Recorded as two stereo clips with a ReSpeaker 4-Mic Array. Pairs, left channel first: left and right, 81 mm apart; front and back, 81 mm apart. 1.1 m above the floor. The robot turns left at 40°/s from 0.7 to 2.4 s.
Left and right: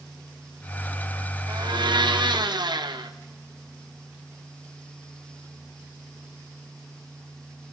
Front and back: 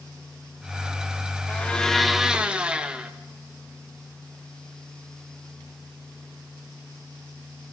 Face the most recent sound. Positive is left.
turn(degrees=-105)